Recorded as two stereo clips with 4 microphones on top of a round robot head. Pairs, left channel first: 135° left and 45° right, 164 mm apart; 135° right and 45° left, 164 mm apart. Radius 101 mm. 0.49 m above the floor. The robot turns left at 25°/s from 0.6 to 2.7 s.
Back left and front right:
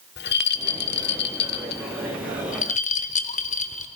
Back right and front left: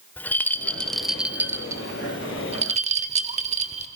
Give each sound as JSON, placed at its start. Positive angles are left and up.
{"t": 0.2, "sound": "a rattle", "azimuth_deg": 145, "distance_m": 0.9}